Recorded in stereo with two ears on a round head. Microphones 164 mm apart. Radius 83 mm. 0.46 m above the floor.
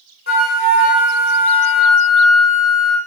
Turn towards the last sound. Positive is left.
turn(degrees=50)  # may be behind; listen again after turning